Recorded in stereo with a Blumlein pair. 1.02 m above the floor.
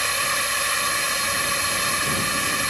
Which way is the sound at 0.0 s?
Straight ahead.